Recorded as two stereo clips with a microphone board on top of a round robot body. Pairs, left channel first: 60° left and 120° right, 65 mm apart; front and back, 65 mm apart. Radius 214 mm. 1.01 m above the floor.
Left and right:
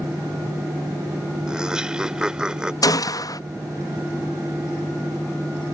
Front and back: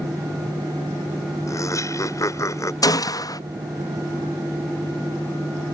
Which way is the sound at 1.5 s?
40° right.